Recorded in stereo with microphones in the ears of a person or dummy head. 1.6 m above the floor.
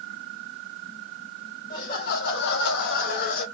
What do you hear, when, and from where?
1.7 s laughter: 45° left (ahead or behind), 0.9 m; by 3.5 s 50° left (ahead or behind), 0.9 m